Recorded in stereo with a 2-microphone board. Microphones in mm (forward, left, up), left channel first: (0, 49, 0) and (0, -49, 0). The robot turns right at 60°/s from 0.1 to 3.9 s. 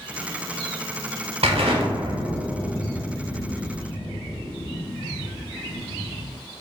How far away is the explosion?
About 0.6 m.